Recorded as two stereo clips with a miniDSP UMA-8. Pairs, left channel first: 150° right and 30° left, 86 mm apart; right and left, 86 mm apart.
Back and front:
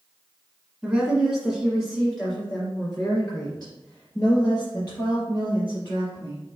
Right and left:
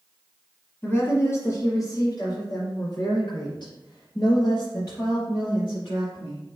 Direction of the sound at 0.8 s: 55° right.